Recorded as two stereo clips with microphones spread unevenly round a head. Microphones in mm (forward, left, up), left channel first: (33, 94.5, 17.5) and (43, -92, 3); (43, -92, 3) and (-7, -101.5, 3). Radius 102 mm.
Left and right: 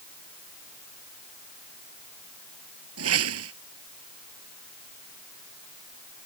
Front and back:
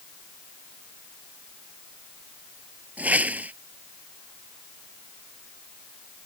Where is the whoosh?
110° right.